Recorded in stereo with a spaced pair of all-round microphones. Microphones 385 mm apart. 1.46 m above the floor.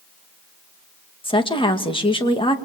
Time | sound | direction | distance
1.2 | a woman speaking | 15° left (ahead or behind) | 2 m